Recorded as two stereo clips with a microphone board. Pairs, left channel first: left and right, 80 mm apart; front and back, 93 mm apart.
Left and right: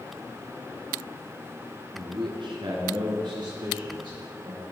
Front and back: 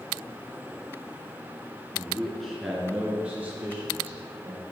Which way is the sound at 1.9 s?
75° right.